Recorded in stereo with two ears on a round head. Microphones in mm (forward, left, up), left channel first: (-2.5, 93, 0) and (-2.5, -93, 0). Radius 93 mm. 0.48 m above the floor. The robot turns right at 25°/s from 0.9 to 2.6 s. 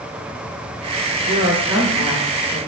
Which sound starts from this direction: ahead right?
A woman speaking, at 1.2 s.